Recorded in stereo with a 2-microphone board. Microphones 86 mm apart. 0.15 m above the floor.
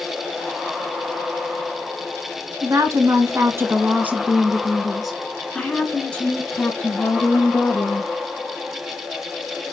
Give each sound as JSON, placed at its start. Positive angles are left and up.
{"t": 2.6, "sound": "a woman speaking", "side_deg": -45, "distance_m": 1.5}